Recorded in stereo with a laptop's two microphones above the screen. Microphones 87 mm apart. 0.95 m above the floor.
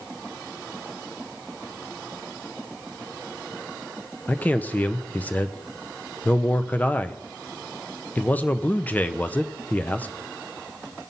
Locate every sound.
4.3 s a man speaking: 20° left (ahead or behind), 0.6 m